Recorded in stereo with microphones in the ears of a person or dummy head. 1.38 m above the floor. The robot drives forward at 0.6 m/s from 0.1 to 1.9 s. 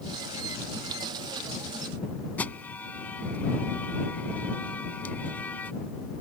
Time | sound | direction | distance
2.4 | an alarm | 10° left (ahead or behind) | ?